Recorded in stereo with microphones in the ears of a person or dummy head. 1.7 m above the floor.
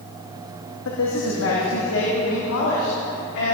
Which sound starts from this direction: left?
A man speaking, at 0.8 s.